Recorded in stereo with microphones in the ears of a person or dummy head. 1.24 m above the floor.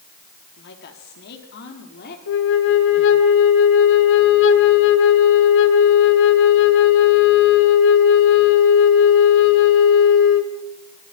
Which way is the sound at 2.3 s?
70° left (ahead or behind).